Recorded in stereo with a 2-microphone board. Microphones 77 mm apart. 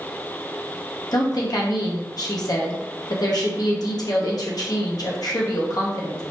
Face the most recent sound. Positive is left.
turn(degrees=60)  # may be behind; listen again after turning